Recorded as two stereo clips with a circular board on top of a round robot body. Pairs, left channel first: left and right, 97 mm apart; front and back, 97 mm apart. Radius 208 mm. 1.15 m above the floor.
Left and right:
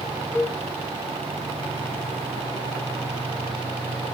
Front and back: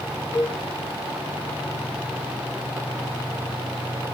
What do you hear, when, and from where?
0.3 s a cowbell: 60° right, 3.5 m